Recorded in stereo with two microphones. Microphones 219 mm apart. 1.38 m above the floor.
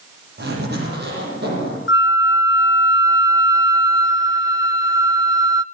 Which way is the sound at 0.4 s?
50° right (ahead or behind).